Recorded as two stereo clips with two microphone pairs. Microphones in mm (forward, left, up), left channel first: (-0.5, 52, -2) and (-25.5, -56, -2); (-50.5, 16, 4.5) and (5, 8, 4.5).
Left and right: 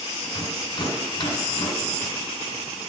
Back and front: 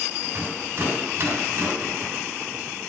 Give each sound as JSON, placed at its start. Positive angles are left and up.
{"t": 0.2, "sound": "a rattle", "azimuth_deg": 35, "distance_m": 1.5}